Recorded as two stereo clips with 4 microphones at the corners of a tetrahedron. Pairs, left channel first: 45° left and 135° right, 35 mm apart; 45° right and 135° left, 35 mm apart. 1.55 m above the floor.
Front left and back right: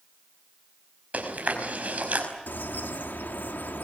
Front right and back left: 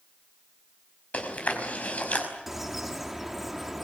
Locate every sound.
1.1 s chewing: 90° right, 5 m
2.5 s a bird: 55° left, 2 m